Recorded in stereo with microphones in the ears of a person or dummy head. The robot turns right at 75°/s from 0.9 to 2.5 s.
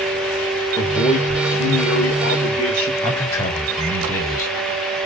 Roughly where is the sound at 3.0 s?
Centre.